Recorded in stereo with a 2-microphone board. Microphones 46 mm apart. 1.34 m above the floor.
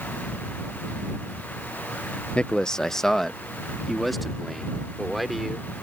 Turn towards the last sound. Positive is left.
turn(degrees=0)  # may be behind; listen again after turning